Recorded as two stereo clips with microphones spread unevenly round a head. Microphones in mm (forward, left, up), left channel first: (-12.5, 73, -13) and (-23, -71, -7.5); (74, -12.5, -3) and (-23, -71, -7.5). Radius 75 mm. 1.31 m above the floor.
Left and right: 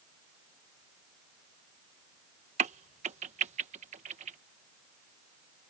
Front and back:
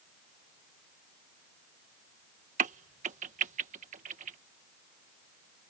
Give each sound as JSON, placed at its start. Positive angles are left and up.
{"t": 2.6, "sound": "a crack", "azimuth_deg": -140}